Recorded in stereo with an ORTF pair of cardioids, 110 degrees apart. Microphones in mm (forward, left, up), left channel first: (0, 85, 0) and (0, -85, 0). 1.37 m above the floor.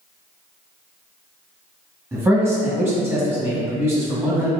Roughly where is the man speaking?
Ahead.